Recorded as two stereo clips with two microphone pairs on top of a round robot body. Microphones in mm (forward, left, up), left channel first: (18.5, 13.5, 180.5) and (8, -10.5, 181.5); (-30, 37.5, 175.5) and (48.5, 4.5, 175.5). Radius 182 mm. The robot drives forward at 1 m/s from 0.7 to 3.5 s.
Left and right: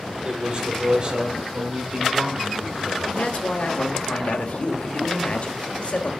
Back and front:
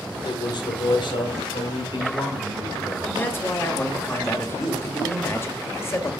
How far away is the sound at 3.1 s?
About 2.5 m.